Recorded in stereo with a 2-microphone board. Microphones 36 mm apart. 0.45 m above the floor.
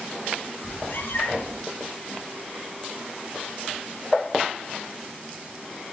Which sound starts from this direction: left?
A cat meowing, at 0.6 s.